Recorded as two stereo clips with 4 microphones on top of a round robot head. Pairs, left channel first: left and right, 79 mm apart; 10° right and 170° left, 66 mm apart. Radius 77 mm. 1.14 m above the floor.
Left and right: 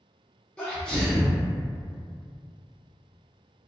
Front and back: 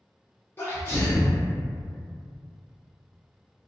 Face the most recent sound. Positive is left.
turn(degrees=20)